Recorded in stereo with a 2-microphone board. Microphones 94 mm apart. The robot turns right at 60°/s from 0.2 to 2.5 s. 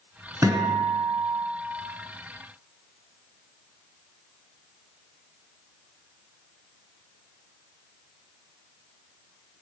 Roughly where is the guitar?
Behind right.